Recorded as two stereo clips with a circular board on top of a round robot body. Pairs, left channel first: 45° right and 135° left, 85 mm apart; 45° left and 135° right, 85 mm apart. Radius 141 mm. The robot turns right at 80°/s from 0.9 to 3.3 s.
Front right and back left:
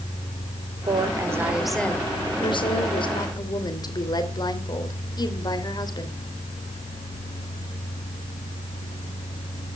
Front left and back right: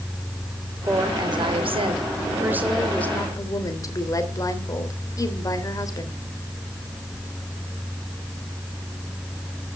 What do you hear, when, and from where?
0.9 s a woman speaking: 160° left, 3 m; by 6.2 s 5° right, 3 m